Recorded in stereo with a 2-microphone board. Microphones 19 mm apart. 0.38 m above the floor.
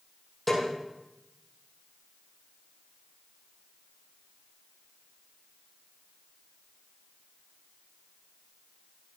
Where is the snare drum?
10° left (ahead or behind), 6 m.